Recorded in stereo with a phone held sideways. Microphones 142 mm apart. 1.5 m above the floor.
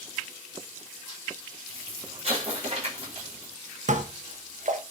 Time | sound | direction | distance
1.7 | an explosion | 45° right (ahead or behind) | 4.5 m
3.9 | dishes clattering | 60° right (ahead or behind) | 1.2 m